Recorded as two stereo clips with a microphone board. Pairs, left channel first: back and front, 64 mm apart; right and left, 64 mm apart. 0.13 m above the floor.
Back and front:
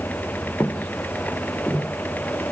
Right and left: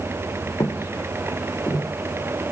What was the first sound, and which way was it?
Footsteps, 115° right.